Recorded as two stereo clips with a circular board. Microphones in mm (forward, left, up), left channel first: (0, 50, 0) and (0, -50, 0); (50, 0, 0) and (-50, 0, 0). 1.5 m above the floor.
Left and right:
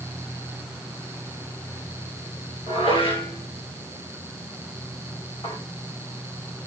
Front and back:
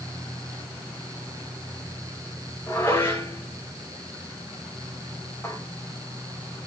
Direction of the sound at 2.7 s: 65° left.